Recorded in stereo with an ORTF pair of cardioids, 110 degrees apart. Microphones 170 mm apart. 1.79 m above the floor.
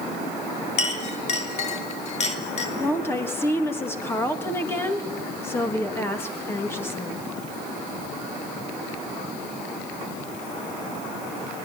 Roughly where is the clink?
Ahead left.